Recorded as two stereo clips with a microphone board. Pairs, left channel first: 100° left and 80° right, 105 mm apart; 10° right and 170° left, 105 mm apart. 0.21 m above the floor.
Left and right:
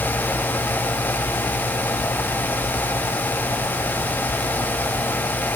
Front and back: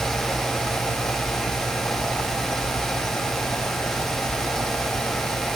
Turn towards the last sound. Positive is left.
No sound to turn to.